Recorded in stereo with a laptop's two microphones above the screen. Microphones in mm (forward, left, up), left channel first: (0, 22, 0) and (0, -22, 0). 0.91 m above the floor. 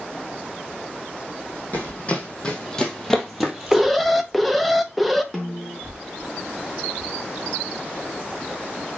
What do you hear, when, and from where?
1.7 s running footsteps: 35° left (ahead or behind), 2.5 m; by 4.3 s 30° right (ahead or behind), 1.6 m
3.7 s an alarm: centre (ahead or behind), 1.0 m
5.3 s a snare drum: 5° left (ahead or behind), 3.5 m